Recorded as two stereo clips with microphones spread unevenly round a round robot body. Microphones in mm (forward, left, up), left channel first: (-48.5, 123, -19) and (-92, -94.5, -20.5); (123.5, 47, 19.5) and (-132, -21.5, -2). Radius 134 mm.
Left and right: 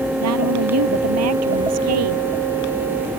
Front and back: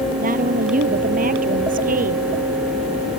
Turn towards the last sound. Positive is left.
turn(degrees=-105)